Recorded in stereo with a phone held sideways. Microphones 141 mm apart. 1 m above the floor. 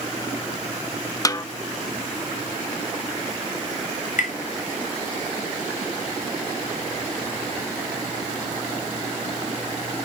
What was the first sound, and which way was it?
A snare drum, 25° left (ahead or behind).